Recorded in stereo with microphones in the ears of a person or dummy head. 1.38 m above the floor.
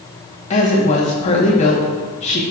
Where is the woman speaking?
35° left (ahead or behind), 1.3 m.